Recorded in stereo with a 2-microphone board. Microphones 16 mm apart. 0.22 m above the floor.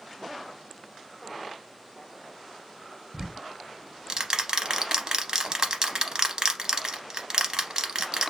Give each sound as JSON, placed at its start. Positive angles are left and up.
{"t": 3.1, "sound": "ticking", "side_deg": -45, "distance_m": 0.5}